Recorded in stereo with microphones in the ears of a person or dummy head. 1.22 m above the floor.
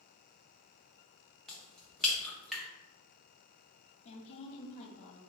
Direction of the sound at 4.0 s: 40° left (ahead or behind).